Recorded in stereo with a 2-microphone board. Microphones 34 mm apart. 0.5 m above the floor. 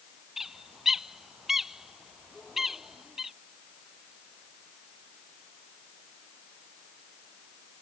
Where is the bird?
10° right (ahead or behind).